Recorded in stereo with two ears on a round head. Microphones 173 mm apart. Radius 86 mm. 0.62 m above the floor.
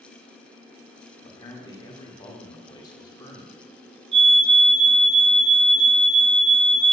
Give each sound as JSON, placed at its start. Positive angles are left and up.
{"t": 1.2, "sound": "a man speaking", "side_deg": 20, "distance_m": 1.6}
{"t": 4.1, "sound": "a fire alarm", "side_deg": -35, "distance_m": 3.0}